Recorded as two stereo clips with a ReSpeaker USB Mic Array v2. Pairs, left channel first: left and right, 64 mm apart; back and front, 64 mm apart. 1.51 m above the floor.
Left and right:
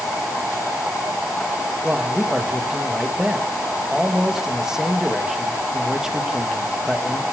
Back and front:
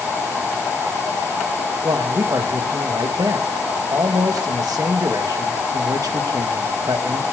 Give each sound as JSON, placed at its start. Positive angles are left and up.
{"t": 1.8, "sound": "a man speaking", "azimuth_deg": -10, "distance_m": 2.0}